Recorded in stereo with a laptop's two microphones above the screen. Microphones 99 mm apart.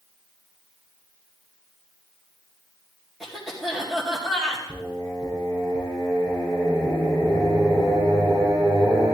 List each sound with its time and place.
3.2 s a cough: centre (ahead or behind), 2 m
4.7 s singing: 50° right (ahead or behind), 6.5 m